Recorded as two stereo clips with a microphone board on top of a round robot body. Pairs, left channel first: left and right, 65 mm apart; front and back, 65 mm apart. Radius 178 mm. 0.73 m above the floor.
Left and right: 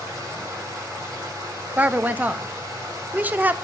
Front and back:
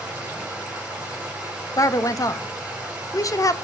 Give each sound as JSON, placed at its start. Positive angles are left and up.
{"t": 0.0, "sound": "running water", "azimuth_deg": -105, "distance_m": 5.0}
{"t": 1.8, "sound": "a woman speaking", "azimuth_deg": -25, "distance_m": 0.9}